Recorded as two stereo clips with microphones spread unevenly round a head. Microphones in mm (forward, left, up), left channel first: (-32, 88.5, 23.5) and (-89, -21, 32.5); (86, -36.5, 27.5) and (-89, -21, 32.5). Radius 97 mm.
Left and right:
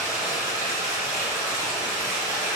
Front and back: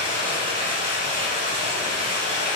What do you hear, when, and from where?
0.0 s running water: 150° right, 1.0 m